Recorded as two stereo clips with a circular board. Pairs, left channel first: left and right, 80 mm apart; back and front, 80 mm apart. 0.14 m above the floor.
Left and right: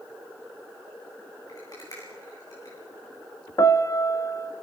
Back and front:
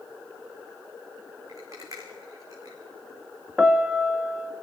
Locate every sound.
1.5 s a rattle: 50° left, 6 m
3.6 s a piano: 75° left, 0.7 m